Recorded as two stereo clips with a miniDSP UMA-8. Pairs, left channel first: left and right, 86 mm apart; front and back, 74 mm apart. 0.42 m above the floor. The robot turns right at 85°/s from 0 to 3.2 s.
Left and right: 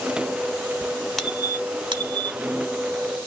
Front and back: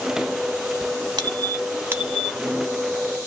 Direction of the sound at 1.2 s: 175° left.